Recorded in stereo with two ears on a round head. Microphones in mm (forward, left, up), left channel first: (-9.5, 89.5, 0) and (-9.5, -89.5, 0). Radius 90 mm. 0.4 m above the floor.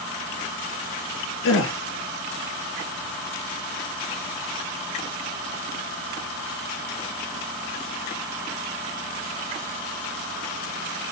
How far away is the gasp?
About 1.6 m.